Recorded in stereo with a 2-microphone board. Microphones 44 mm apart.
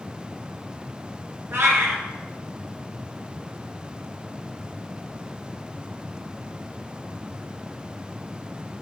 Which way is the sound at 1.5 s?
70° right (ahead or behind).